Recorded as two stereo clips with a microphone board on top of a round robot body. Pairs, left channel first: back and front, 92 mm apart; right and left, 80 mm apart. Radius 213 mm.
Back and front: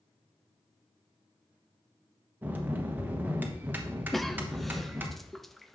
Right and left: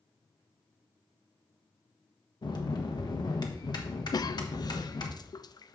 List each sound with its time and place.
2.4 s a bell: 70° right, 1.2 m
4.1 s a cough: 90° right, 0.5 m